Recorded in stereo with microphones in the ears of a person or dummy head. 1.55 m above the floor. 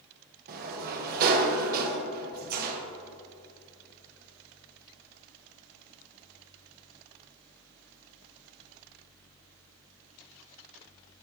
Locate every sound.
0.5 s a sliding door: 50° right (ahead or behind), 0.9 m